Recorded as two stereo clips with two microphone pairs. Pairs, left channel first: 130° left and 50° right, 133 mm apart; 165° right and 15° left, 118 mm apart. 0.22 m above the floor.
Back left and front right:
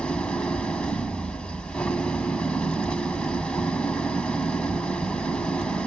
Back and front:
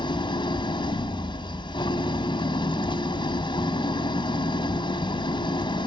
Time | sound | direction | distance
0.0 | an engine running | 150° right | 1.1 m